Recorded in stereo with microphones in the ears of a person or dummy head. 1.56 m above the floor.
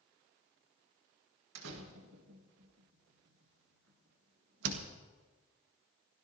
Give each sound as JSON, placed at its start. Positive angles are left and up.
{"t": 1.6, "sound": "a door slam", "side_deg": -75, "distance_m": 1.6}